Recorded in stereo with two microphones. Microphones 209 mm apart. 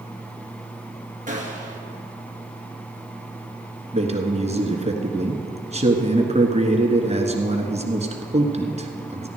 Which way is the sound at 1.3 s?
40° right (ahead or behind).